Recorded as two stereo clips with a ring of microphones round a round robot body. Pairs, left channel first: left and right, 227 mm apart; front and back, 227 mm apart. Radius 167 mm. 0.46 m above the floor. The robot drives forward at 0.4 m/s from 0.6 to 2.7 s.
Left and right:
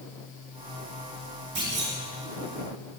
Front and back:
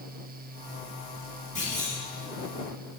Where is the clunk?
125° right, 5 m; by 1.9 s 130° right, 5 m.